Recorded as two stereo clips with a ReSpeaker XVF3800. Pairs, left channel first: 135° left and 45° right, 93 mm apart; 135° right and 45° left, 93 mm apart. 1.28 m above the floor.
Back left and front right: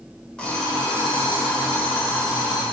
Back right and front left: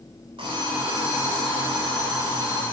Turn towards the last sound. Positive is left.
turn(degrees=55)